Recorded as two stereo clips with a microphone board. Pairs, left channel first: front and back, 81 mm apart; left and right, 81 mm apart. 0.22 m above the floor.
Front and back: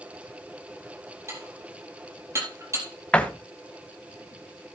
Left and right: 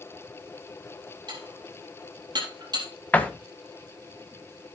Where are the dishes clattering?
125° right, 4 m.